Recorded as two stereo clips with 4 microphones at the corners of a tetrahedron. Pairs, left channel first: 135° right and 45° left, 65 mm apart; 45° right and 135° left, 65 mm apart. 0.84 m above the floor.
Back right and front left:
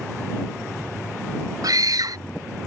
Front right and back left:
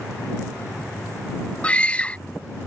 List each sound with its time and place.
1.6 s a scream: 25° left